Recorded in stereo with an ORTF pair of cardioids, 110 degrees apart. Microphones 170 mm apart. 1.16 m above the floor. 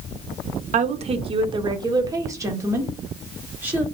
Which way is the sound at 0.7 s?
50° right.